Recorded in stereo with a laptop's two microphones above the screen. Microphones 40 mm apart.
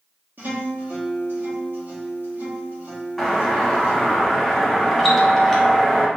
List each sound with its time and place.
0.4 s a guitar: 60° right (ahead or behind), 1.6 m
3.2 s a doorbell: 5° left (ahead or behind), 0.9 m